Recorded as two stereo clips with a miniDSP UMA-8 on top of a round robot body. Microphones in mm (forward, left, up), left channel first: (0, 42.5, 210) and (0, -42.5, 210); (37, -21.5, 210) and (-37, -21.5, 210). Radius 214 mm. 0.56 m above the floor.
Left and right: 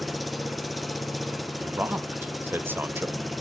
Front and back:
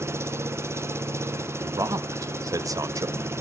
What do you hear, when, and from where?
0.0 s an engine running: straight behind, 0.8 m
1.6 s a man speaking: 150° right, 0.9 m